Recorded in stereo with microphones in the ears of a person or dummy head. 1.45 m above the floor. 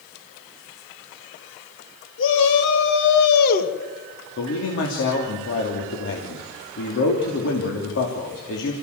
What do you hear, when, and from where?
2.2 s a shout: 75° left (ahead or behind), 3.5 m; by 3.7 s 50° left (ahead or behind), 2 m
4.4 s a man speaking: 65° left (ahead or behind), 3 m